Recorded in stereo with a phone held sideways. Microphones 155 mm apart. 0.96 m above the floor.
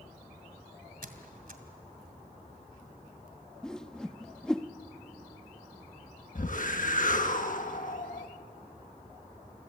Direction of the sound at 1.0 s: 70° right (ahead or behind).